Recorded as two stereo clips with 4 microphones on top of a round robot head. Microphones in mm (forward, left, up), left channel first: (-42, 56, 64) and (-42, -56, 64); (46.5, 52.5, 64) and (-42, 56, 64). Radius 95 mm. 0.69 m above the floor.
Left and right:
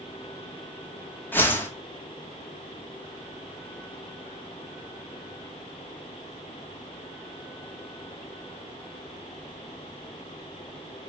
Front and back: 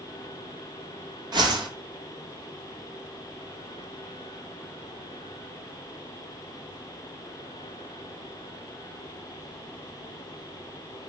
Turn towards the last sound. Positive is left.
turn(degrees=160)